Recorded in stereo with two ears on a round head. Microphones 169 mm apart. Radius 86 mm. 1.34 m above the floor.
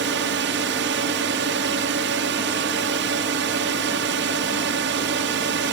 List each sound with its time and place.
0.0 s a drone: 65° right (ahead or behind)